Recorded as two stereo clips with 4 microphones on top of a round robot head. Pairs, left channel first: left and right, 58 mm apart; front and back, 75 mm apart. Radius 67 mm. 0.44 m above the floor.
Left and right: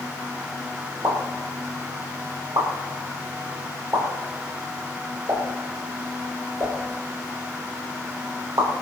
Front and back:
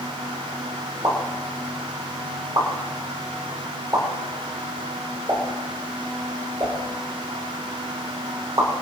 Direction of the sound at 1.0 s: 130° right.